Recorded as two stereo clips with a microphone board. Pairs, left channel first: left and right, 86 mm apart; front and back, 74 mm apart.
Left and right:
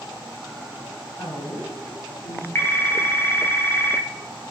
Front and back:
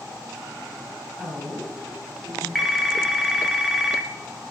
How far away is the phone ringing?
About 0.8 m.